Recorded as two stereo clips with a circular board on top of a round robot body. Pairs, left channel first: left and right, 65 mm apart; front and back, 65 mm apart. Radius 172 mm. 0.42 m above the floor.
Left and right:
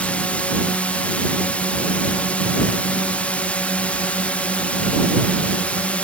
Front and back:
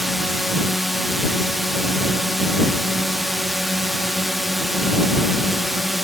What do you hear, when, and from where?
0.0 s a drone: 95° left